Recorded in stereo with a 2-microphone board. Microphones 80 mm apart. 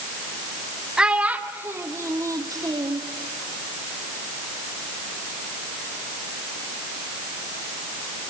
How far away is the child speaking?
About 1.6 m.